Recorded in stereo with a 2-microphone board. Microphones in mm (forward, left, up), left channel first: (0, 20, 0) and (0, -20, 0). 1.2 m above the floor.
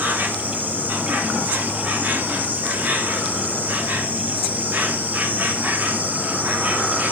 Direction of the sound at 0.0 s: 45° right (ahead or behind).